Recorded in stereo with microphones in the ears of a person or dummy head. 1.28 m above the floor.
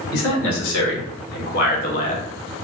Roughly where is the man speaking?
Left.